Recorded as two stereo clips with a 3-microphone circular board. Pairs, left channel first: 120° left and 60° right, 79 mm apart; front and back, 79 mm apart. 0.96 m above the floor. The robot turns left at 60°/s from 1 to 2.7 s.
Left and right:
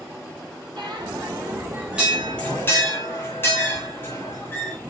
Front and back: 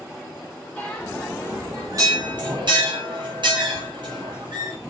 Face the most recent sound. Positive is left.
turn(degrees=180)